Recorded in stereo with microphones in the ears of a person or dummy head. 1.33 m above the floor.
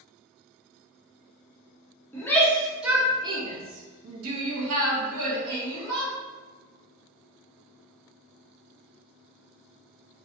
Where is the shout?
15° left (ahead or behind), 0.9 m; by 6.1 s 70° right (ahead or behind), 1.4 m.